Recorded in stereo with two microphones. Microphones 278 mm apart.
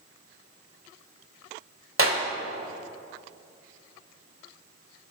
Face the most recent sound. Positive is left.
turn(degrees=-50)  # may be behind; listen again after turning